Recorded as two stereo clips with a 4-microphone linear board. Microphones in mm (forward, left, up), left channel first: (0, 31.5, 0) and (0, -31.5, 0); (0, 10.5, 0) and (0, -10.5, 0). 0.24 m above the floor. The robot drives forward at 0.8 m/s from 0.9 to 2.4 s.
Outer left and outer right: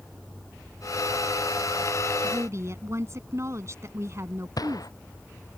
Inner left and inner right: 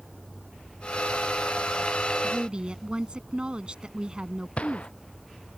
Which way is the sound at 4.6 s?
75° left (ahead or behind).